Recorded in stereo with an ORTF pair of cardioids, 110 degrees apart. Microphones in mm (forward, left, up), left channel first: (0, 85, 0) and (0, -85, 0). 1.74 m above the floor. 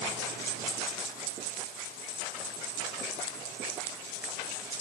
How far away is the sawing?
No sawing in this recording.